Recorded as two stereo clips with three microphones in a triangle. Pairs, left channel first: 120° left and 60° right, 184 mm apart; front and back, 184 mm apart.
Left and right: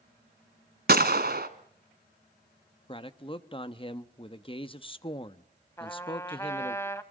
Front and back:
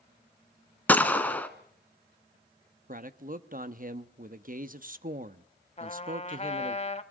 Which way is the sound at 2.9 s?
175° left.